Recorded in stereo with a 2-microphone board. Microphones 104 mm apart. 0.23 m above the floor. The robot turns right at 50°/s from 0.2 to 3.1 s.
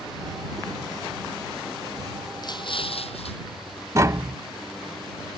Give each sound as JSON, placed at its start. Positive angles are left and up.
{"t": 2.4, "sound": "an explosion", "azimuth_deg": 40}
{"t": 4.0, "sound": "tapping", "side_deg": -30}